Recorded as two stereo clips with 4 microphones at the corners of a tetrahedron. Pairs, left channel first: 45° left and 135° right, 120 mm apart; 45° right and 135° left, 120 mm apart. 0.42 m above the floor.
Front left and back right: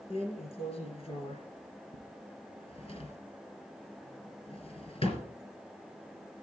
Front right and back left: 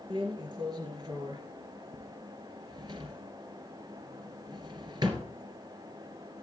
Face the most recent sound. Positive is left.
turn(degrees=80)